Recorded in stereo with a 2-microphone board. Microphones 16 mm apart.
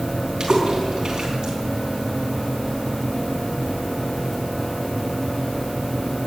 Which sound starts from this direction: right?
A splash, at 0.4 s.